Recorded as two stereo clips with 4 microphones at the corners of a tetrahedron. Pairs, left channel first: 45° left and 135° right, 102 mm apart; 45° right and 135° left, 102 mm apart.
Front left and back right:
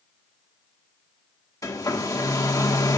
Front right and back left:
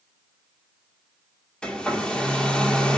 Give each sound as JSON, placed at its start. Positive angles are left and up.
{"t": 1.6, "sound": "a hair dryer", "azimuth_deg": 30, "distance_m": 1.2}